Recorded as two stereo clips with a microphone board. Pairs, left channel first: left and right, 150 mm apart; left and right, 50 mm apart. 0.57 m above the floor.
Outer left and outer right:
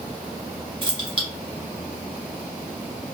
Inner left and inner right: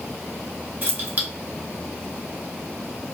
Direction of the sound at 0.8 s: 35° right (ahead or behind).